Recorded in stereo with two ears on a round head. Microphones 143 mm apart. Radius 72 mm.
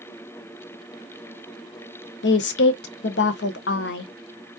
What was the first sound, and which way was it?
A woman speaking, 75° left (ahead or behind).